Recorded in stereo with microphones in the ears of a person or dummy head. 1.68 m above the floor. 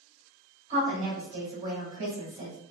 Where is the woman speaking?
40° right (ahead or behind), 1.7 m.